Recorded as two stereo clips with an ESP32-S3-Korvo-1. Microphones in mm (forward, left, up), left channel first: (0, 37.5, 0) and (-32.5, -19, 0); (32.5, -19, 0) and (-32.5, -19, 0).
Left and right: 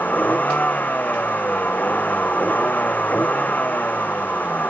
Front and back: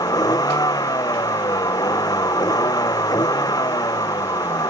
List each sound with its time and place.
0.0 s a vehicle: 5° right